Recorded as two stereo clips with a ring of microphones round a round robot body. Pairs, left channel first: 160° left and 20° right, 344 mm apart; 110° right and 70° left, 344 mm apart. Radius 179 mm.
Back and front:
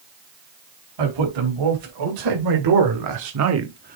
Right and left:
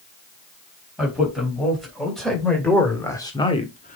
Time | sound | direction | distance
1.0 | a man speaking | 20° right | 4 m